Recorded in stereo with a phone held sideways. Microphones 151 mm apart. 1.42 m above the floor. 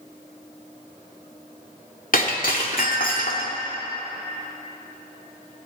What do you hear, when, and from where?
2.1 s breaking glass: 65° left (ahead or behind), 2.5 m